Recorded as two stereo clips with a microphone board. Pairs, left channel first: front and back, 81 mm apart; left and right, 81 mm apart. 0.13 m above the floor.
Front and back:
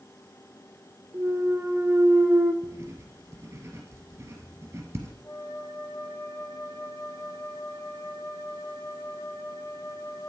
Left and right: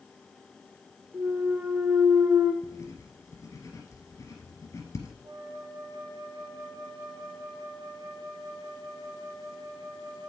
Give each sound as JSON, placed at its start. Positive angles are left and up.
{"t": 1.1, "sound": "a clunk", "azimuth_deg": -140, "distance_m": 0.6}
{"t": 2.6, "sound": "writing", "azimuth_deg": 125, "distance_m": 2.0}
{"t": 5.2, "sound": "a flute", "azimuth_deg": -50, "distance_m": 1.9}